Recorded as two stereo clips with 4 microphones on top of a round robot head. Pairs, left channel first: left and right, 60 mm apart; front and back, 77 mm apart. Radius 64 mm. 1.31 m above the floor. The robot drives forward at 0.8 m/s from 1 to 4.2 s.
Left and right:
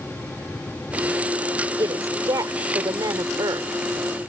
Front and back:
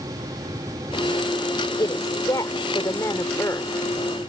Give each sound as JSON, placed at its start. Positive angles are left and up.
{"t": 1.8, "sound": "a woman speaking", "azimuth_deg": -55}